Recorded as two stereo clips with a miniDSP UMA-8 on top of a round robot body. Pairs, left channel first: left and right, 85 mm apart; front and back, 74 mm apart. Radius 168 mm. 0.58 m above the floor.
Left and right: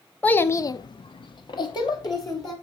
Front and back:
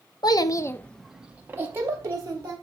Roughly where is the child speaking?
Ahead.